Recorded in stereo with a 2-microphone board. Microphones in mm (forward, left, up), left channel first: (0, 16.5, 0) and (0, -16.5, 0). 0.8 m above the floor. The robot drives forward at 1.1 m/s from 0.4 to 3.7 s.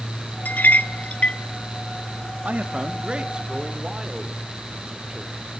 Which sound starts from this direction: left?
A clink, at 0.5 s.